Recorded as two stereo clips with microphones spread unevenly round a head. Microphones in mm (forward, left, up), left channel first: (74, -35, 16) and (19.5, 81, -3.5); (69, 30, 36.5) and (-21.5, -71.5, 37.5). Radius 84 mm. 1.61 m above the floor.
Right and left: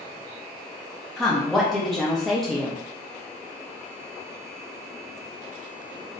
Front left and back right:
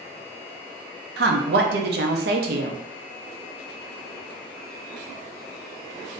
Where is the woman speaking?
150° right, 0.6 m.